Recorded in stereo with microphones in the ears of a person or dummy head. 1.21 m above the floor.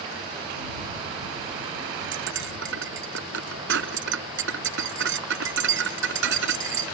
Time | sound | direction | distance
2.1 | cutlery clinking | 65° right (ahead or behind) | ?